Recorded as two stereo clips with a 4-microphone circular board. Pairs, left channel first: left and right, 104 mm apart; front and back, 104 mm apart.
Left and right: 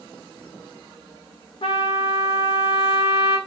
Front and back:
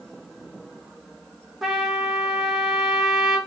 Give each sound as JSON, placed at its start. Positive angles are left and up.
{"t": 1.6, "sound": "a trumpet", "azimuth_deg": 95, "distance_m": 1.2}